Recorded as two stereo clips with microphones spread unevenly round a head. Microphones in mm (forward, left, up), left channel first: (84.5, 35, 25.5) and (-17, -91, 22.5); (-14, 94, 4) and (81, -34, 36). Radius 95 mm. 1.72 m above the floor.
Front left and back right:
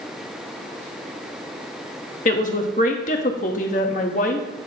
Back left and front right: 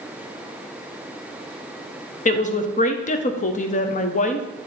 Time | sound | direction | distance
2.2 | a woman speaking | 85° left | 0.7 m